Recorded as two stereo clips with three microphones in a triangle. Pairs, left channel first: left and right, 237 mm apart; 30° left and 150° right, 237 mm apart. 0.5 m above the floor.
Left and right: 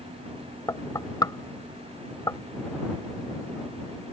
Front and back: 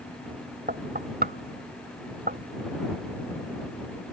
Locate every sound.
0.7 s knocking: 165° left